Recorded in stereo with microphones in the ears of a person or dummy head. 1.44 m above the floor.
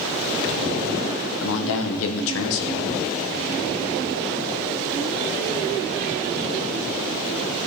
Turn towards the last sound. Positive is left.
turn(degrees=80)